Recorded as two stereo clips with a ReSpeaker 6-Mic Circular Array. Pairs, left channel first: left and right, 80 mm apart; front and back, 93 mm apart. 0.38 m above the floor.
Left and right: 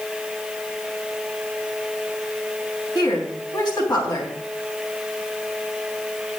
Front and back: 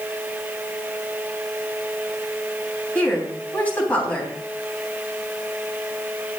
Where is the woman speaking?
70° left, 3 m.